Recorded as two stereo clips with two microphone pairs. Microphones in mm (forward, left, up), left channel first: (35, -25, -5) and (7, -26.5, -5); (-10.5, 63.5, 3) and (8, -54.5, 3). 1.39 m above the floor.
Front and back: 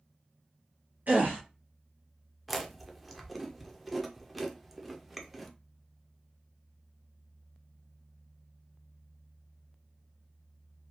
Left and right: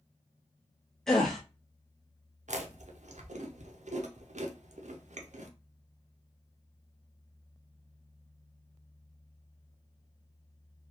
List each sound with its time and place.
1.1 s a gasp: 175° right, 0.7 m
2.5 s chewing: 90° right, 0.5 m